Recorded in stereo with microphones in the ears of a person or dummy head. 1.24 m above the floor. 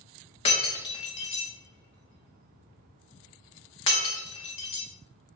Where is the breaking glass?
35° left (ahead or behind), 0.7 m.